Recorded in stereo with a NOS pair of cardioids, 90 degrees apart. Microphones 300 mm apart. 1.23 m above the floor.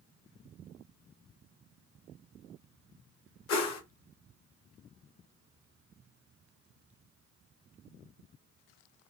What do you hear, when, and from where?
3.5 s a whoosh: 60° left, 1.1 m